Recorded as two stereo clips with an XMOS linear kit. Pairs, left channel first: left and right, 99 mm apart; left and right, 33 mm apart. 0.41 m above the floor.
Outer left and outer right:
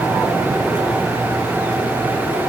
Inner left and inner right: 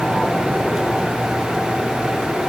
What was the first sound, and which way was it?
Only background noise.